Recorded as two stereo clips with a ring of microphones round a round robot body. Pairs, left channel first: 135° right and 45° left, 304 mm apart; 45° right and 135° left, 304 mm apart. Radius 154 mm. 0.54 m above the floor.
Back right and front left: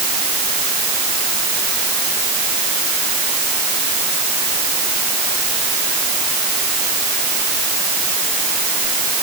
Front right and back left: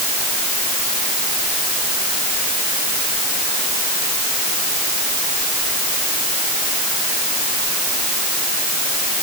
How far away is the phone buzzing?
No phone buzzing in this recording.